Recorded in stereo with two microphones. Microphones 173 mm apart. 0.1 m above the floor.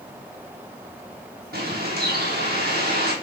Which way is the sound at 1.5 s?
65° right (ahead or behind).